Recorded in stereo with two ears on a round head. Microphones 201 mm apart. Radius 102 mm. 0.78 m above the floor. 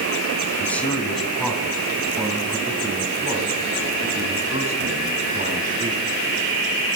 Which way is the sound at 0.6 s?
10° left (ahead or behind).